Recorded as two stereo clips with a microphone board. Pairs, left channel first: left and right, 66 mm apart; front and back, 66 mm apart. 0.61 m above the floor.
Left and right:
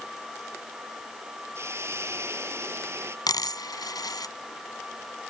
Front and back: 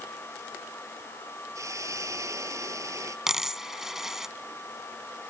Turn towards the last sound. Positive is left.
turn(degrees=95)